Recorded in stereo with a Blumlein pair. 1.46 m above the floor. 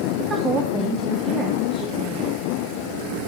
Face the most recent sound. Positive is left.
turn(degrees=-20)